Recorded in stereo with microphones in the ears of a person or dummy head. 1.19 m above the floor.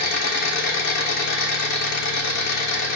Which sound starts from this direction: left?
An engine running, at 0.0 s.